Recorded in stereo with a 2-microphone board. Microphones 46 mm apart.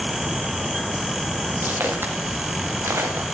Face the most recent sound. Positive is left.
turn(degrees=-75)  # may be behind; listen again after turning